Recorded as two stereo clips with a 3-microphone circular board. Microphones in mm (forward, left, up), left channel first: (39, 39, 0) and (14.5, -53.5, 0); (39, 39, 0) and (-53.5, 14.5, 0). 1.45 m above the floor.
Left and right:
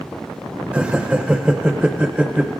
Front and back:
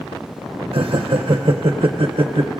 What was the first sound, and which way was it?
Laughter, straight behind.